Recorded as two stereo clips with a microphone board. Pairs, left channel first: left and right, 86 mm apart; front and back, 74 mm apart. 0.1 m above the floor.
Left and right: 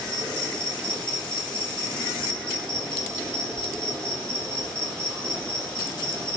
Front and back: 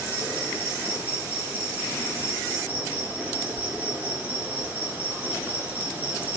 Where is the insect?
155° left, 1.2 m.